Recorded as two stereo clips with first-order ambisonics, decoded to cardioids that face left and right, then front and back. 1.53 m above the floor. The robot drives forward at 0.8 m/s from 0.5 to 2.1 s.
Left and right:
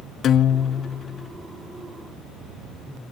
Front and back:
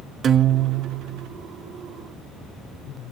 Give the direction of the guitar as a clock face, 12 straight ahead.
8 o'clock.